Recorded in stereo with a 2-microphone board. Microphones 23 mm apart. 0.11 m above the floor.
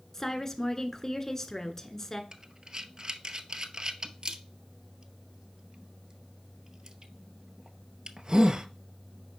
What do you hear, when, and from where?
0.1 s a woman speaking: 20° left (ahead or behind), 1.1 m
2.3 s breathing: 35° right (ahead or behind), 0.7 m